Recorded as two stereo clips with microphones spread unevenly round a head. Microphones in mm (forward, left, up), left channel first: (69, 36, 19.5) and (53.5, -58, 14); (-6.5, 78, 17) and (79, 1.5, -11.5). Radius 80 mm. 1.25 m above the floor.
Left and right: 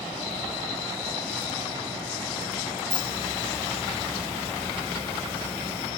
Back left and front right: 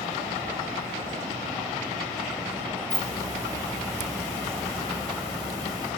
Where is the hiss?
20° left, 5 m.